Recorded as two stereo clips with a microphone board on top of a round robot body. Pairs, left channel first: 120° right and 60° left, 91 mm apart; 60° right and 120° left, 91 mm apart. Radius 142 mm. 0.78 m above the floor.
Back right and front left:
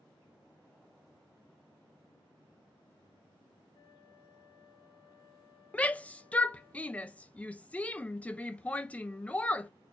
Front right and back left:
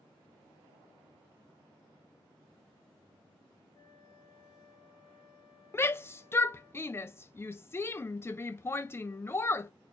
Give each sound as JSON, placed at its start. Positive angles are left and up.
{"t": 3.7, "sound": "a flute", "azimuth_deg": -85, "distance_m": 2.5}
{"t": 5.7, "sound": "a shout", "azimuth_deg": -65, "distance_m": 0.5}